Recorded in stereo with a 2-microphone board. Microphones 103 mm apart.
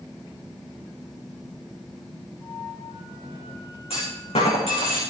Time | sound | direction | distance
2.4 | a flute | 50° left (ahead or behind) | 6.5 m
3.9 | a clunk | 70° left (ahead or behind) | 5.5 m